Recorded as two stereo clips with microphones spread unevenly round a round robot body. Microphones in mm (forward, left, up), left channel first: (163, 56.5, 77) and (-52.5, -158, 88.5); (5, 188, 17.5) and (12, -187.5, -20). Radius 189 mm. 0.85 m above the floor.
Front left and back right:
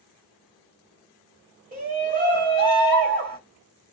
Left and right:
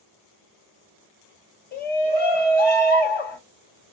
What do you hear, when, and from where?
1.7 s a shout: 160° left, 1.3 m